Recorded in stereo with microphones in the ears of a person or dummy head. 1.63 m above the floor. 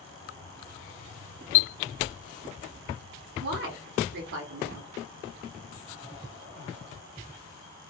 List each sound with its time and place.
3.4 s a woman speaking: 55° right (ahead or behind), 0.8 m